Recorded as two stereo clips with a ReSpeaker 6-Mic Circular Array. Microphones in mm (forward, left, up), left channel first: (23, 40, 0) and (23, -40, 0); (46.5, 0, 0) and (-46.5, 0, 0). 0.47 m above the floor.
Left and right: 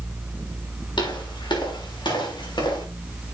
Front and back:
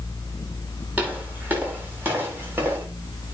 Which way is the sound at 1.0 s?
110° left.